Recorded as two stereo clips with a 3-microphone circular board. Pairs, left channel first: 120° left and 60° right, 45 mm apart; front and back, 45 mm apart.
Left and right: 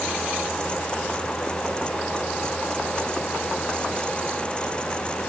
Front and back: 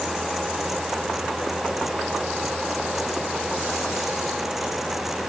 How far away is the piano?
No piano in this recording.